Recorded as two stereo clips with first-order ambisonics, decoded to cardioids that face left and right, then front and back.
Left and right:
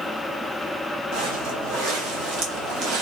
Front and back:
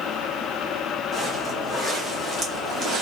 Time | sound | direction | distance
1.1 | footsteps | 90° right | 1.8 m